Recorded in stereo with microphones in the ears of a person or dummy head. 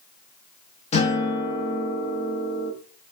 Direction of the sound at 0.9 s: 30° left (ahead or behind).